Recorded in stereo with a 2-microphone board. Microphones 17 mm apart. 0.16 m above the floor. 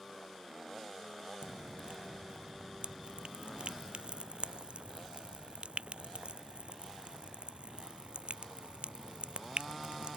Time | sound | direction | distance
1.4 | dripping | 80° right | ?